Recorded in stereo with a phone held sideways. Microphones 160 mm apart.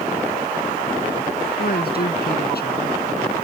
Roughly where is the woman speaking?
Left.